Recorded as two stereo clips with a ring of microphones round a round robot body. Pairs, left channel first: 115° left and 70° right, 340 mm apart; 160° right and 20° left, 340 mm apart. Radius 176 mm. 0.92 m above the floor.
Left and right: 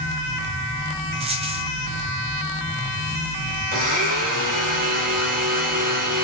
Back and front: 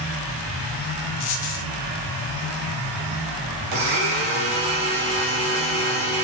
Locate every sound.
1.2 s a dropped coin: 140° right, 1.6 m
3.7 s a blender: 5° right, 4 m